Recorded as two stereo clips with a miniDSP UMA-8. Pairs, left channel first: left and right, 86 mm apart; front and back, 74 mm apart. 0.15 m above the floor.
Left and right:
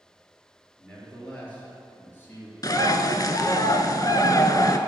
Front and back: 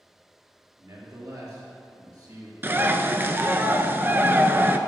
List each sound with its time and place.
0.8 s a man speaking: 175° left, 3 m; by 2.5 s 150° left, 3.5 m
2.6 s a bird: 125° left, 0.5 m